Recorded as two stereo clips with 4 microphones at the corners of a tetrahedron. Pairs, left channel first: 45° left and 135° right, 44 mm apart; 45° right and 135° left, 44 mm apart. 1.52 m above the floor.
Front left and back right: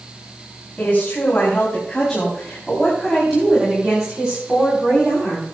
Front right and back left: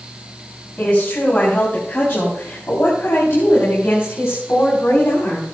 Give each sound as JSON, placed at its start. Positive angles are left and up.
{"t": 0.8, "sound": "a woman speaking", "azimuth_deg": -5, "distance_m": 5.0}